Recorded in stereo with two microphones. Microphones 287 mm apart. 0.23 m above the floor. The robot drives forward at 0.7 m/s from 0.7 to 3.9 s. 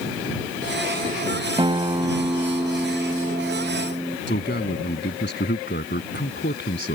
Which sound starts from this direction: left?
A man speaking, at 4.3 s.